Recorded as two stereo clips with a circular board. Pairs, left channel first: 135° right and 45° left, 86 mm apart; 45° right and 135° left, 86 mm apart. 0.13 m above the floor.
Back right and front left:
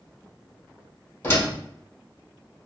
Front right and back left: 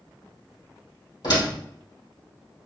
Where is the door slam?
70° right, 2 m.